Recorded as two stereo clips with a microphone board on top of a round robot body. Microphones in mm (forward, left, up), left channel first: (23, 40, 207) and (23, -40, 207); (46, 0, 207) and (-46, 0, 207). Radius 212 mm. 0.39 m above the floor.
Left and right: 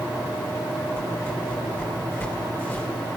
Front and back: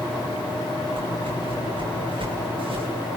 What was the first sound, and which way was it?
A whoosh, 155° left.